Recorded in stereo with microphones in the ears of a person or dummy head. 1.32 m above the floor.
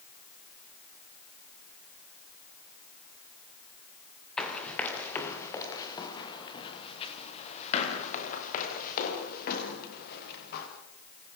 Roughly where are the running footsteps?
Centre.